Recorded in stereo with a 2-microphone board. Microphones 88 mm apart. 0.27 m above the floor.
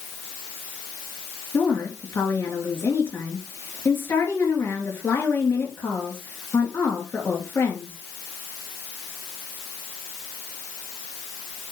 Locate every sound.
1.5 s a woman speaking: 30° left (ahead or behind), 4 m